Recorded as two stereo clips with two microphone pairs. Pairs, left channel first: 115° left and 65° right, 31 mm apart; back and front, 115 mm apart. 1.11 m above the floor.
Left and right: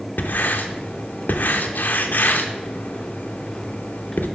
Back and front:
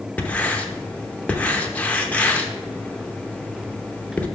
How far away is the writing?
About 0.8 m.